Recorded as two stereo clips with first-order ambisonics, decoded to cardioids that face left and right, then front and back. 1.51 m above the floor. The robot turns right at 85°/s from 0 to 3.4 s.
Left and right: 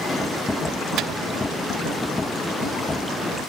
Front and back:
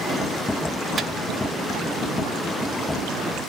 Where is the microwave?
115° right, 0.5 m; by 1.1 s 105° right, 0.5 m.